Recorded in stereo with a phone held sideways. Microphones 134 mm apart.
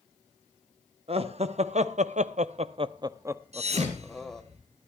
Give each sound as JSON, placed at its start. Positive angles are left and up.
{"t": 1.1, "sound": "laughter", "side_deg": -50, "distance_m": 1.2}
{"t": 3.5, "sound": "a thud", "side_deg": -55, "distance_m": 2.5}